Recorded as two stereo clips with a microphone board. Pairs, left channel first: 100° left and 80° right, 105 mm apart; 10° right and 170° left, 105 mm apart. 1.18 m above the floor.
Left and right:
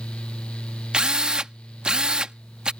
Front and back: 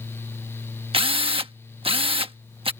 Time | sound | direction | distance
0.9 | a drill | 160° right | ?